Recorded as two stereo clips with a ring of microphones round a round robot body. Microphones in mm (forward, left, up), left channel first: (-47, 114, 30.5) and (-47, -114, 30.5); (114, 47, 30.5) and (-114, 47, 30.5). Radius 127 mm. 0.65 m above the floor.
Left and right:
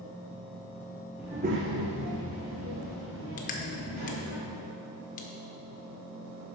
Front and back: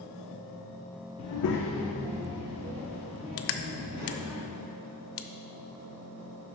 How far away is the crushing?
About 0.5 m.